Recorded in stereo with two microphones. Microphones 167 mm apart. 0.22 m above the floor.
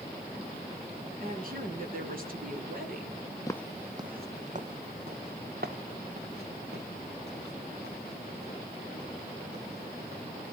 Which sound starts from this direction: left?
Footsteps, at 3.5 s.